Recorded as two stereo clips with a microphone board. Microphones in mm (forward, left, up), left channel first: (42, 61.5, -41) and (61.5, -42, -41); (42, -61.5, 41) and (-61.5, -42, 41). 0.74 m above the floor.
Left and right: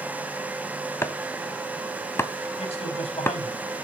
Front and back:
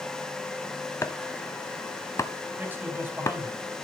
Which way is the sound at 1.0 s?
35° left.